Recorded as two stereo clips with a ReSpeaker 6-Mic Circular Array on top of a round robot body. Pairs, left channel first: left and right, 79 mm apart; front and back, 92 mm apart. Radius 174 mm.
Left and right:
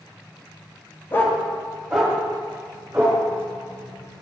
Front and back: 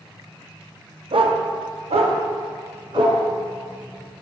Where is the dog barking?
150° left, 0.7 m; by 3.2 s 160° right, 1.8 m.